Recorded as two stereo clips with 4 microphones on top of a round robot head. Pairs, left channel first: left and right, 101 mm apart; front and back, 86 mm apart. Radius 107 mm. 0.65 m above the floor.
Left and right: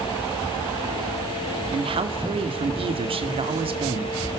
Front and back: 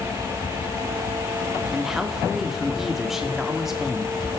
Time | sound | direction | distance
1.7 | a man speaking | 95° right | 2 m